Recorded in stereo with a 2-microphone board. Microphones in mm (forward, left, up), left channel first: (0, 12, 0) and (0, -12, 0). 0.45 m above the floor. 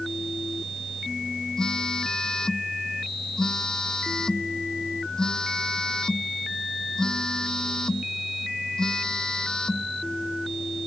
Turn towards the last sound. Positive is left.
turn(degrees=30)  # may be behind; listen again after turning